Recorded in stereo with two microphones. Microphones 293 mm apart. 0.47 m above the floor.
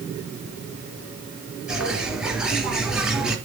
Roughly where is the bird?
Centre.